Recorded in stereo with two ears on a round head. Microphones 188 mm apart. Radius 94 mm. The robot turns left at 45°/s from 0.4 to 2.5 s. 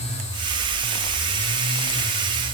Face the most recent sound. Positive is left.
No sound to turn to.